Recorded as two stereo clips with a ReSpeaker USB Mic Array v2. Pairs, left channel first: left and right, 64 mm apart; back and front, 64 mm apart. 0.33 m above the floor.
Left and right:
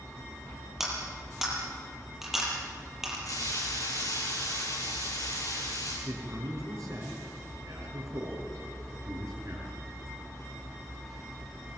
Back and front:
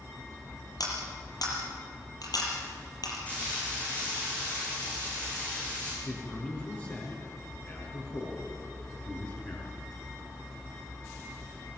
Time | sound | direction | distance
0.8 | cutlery clinking | 175° right | 6.5 m
3.3 | frying | 110° left | 7 m
6.0 | a man speaking | 125° right | 5.5 m